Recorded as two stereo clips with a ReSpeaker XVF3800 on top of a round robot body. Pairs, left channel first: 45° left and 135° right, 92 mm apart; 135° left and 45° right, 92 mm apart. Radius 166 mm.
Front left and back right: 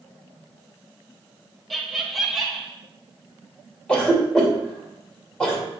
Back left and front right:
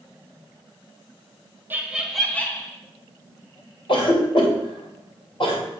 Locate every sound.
1.7 s laughter: 45° right, 1.2 m; by 2.7 s 135° left, 1.3 m
3.9 s a cough: 125° left, 2.5 m